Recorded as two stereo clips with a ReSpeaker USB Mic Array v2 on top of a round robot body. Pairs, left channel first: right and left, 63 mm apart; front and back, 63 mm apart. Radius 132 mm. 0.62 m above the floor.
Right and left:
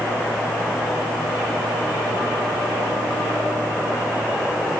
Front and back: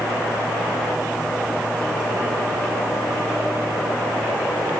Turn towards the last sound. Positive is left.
No sound to turn to.